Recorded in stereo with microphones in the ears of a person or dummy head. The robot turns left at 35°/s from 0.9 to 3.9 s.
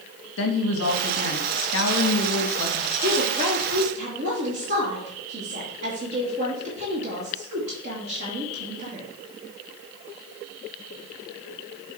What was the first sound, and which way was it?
A woman speaking, 100° left.